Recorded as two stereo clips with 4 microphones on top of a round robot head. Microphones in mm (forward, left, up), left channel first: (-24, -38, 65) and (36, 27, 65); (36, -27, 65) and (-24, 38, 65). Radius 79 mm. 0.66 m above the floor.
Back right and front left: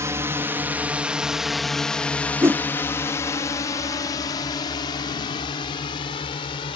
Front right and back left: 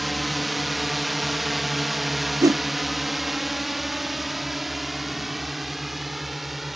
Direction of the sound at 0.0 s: 45° left.